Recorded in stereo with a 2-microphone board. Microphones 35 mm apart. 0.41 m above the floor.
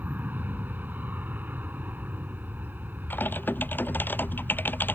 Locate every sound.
0.0 s an aircraft: 70° right (ahead or behind)
3.1 s typing on a keyboard: 85° left